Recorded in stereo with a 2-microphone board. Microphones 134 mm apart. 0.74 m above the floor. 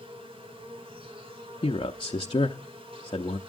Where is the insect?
45° right (ahead or behind), 2.5 m.